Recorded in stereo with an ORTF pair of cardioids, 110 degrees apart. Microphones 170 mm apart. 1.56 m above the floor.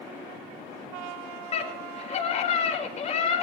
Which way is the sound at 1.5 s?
40° left.